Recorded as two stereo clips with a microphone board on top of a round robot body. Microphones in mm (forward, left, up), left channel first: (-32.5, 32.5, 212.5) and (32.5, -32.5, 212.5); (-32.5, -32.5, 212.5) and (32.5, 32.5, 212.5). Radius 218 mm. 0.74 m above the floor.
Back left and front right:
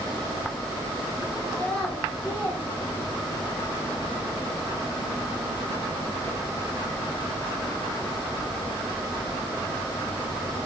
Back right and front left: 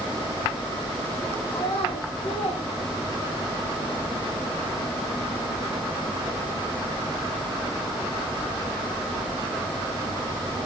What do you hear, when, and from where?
1.5 s a child speaking: 145° right, 3 m